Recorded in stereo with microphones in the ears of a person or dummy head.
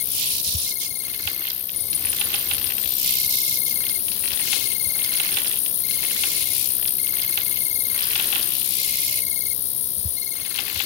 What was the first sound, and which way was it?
An insect, 40° left (ahead or behind).